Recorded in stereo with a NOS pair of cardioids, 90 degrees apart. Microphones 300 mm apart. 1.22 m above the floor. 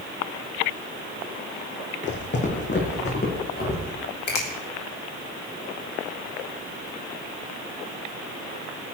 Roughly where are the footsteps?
Ahead left.